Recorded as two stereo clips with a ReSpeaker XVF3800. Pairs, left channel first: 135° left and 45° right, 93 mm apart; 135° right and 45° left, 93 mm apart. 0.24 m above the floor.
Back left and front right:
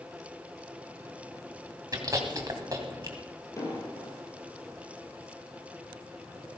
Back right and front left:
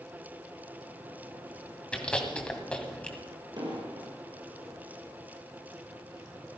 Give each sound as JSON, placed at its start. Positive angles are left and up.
{"t": 1.9, "sound": "chewing", "azimuth_deg": -65, "distance_m": 2.0}
{"t": 3.6, "sound": "an explosion", "azimuth_deg": 80, "distance_m": 3.5}